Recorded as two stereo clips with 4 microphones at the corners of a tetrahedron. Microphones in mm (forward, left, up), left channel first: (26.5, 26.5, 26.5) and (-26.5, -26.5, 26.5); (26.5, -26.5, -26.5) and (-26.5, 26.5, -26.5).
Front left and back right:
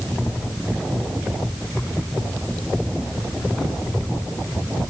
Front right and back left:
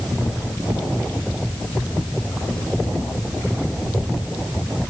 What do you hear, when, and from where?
Only background noise.